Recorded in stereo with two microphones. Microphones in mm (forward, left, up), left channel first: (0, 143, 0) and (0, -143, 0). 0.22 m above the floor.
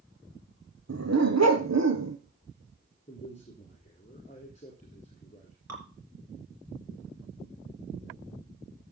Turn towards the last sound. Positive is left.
turn(degrees=-65)  # may be behind; listen again after turning